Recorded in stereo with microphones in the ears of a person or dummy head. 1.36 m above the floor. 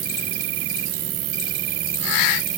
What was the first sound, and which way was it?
An insect, 50° right (ahead or behind).